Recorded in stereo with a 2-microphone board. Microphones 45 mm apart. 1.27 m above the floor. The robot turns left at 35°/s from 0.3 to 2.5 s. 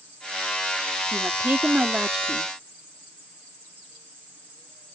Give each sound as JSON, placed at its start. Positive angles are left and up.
{"t": 1.1, "sound": "a woman speaking", "azimuth_deg": -120}